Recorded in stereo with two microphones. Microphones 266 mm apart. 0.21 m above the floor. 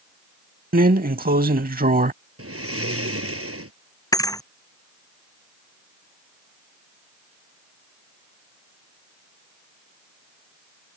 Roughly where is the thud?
Centre.